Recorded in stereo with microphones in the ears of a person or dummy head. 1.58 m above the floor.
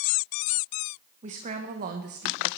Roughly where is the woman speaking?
Right.